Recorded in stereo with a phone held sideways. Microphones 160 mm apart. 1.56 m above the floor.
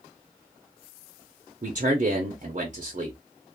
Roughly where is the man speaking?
Right.